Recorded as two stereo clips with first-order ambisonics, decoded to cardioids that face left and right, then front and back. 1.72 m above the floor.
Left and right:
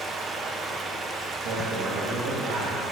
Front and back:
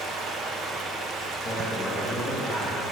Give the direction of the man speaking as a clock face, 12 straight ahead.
3 o'clock.